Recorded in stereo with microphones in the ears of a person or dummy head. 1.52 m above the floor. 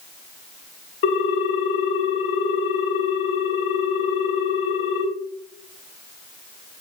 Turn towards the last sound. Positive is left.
turn(degrees=65)  # may be behind; listen again after turning